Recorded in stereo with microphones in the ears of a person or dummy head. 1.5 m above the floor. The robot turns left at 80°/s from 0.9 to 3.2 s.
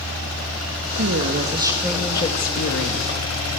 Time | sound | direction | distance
1.0 | a woman speaking | 105° right | 2.5 m